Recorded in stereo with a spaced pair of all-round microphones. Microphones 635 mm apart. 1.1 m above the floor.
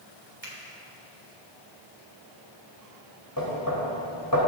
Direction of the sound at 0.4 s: 20° right (ahead or behind).